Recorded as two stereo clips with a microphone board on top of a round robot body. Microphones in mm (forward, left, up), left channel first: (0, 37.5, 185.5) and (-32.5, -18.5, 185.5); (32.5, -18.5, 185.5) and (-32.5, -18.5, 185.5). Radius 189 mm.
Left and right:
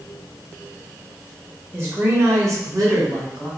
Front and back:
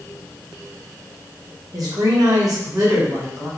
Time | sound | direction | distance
1.7 | a woman speaking | 175° right | 1.6 m